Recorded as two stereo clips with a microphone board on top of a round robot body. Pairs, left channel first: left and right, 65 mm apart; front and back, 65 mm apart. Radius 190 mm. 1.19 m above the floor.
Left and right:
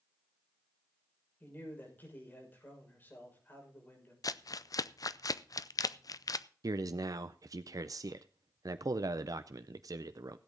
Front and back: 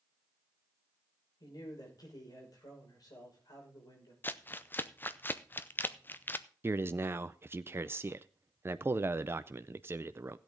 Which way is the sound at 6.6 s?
120° right.